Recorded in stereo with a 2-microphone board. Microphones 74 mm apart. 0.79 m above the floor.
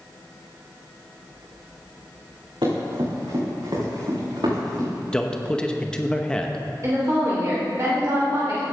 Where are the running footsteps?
80° right, 4 m; by 4.9 s 75° right (ahead or behind), 6.5 m.